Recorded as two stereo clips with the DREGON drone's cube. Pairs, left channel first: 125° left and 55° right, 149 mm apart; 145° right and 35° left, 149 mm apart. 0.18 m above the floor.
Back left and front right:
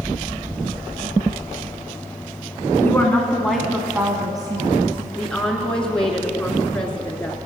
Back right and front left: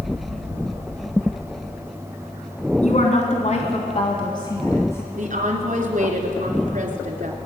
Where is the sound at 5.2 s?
40° left, 2 m.